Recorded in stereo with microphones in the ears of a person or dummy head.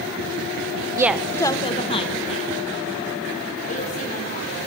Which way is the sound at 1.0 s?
15° right (ahead or behind).